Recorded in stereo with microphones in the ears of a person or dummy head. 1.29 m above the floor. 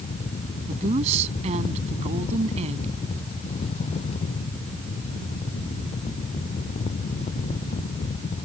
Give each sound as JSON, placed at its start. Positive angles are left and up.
{"t": 0.7, "sound": "a woman speaking", "side_deg": -40}